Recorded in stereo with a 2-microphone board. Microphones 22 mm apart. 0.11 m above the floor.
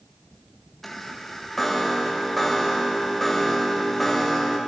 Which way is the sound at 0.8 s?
15° left (ahead or behind).